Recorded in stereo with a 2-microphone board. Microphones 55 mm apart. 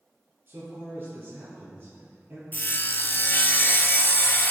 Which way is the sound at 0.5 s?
40° right (ahead or behind).